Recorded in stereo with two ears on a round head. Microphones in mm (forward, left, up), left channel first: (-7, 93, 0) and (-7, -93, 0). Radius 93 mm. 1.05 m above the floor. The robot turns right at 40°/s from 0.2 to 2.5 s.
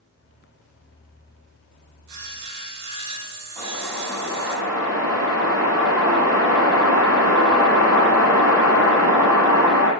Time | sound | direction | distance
2.1 | sawing | 70° right (ahead or behind) | 4 m
3.6 | a whoosh | 15° right (ahead or behind) | 8 m